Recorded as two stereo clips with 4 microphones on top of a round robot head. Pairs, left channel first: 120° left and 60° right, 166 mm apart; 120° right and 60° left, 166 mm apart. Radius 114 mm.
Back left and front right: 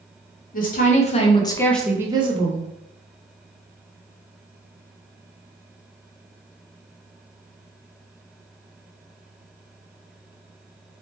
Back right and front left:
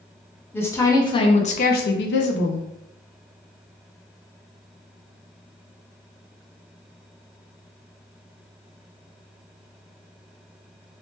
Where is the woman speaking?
160° left, 0.9 m; by 2.7 s 100° right, 0.6 m.